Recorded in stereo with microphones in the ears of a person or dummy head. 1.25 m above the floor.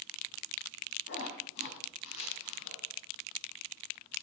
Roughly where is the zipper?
Left.